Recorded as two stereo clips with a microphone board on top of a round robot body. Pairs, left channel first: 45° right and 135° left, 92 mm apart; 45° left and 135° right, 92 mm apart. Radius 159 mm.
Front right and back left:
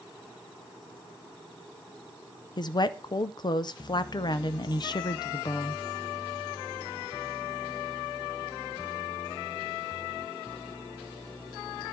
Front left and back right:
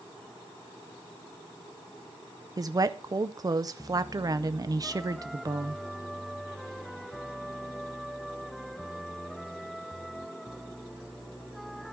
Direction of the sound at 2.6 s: 85° right.